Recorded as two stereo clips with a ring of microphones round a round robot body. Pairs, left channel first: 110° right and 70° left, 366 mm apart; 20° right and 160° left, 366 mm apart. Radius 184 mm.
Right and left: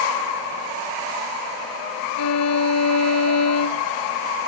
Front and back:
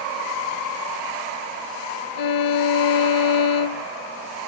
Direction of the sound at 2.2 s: 60° right.